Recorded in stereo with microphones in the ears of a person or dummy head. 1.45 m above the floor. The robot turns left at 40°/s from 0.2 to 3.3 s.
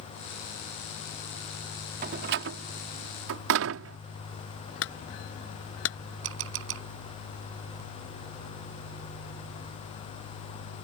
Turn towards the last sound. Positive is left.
turn(degrees=-70)  # may be behind; listen again after turning